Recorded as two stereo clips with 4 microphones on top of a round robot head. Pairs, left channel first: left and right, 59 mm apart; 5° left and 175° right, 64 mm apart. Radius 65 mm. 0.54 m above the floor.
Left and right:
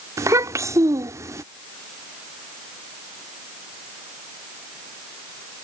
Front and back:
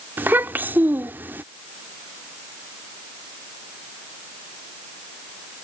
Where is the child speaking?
115° right.